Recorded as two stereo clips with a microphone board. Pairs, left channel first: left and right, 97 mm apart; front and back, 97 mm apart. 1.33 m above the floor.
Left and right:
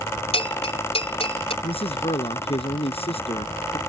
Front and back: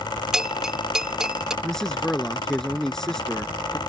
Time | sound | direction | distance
0.3 | a bell | 100° left | ?
1.6 | a man speaking | 85° left | ?